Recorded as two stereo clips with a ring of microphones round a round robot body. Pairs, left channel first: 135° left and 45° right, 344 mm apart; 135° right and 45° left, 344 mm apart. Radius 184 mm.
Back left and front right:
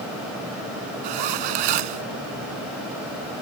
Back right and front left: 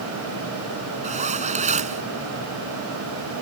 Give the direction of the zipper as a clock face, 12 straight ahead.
1 o'clock.